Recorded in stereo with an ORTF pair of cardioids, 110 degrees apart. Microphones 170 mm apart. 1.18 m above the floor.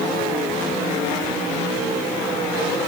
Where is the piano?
I don't hear a piano.